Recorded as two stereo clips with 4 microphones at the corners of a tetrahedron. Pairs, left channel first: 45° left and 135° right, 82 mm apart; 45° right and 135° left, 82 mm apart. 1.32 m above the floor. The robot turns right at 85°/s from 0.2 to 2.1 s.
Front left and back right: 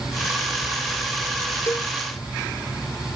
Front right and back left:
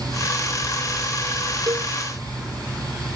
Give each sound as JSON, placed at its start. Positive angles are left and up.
{"t": 1.7, "sound": "a cowbell", "azimuth_deg": 100}